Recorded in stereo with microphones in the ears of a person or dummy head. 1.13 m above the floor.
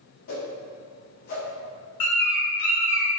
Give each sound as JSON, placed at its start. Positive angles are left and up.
{"t": 0.3, "sound": "a whoosh", "side_deg": 50, "distance_m": 0.9}
{"t": 2.0, "sound": "a bird", "side_deg": 40, "distance_m": 1.4}